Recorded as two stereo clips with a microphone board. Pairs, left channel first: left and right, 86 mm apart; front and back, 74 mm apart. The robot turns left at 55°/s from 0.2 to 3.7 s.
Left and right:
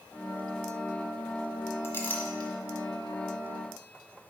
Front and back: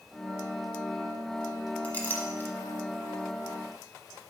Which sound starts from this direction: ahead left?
A clink, at 1.8 s.